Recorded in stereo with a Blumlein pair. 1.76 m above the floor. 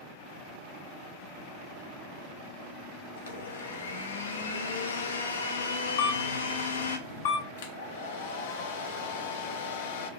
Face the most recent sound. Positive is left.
turn(degrees=60)